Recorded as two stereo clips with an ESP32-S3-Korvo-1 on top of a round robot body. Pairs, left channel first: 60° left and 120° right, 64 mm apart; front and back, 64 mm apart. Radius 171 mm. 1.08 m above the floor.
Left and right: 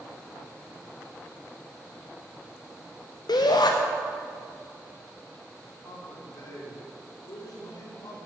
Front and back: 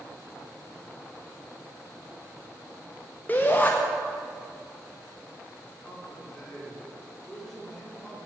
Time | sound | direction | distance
3.3 | a shout | 65° left | 0.6 m
5.8 | a man speaking | 80° left | 4 m